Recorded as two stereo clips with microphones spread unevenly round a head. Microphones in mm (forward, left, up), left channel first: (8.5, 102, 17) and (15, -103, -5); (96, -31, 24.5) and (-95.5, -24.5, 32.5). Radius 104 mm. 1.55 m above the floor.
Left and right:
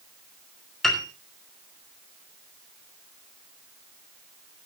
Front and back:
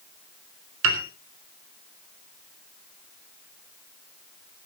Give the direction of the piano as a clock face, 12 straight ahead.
6 o'clock.